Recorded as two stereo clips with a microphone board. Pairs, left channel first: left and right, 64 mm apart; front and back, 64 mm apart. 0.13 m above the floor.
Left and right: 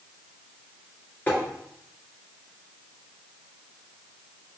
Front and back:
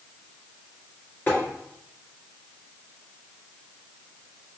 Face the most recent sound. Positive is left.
turn(degrees=40)